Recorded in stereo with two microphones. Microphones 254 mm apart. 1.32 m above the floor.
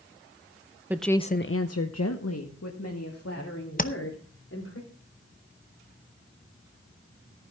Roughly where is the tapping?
Left.